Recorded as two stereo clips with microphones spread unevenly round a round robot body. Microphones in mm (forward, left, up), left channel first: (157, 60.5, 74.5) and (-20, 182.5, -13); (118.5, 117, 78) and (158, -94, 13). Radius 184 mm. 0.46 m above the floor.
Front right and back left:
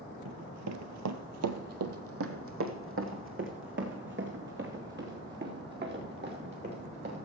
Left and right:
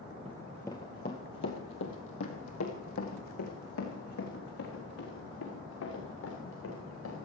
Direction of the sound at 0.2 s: 160° right.